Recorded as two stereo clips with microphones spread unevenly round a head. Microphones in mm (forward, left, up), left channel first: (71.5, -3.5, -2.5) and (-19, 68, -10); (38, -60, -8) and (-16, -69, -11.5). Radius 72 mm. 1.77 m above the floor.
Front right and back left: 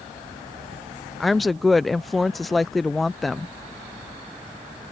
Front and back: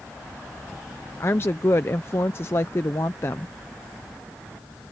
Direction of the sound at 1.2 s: 45° left.